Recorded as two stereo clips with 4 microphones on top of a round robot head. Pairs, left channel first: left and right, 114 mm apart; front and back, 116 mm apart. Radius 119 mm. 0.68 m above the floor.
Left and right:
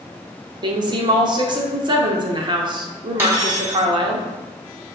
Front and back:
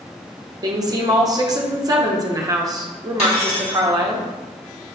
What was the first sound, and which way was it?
A woman speaking, 130° right.